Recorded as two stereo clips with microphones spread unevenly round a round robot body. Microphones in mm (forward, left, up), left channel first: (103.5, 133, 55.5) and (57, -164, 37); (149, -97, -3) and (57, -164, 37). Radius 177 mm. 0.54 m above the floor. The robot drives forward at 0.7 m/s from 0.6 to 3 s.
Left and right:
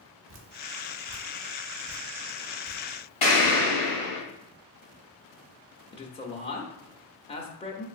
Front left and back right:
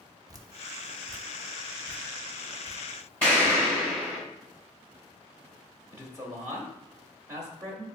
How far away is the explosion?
About 1.8 m.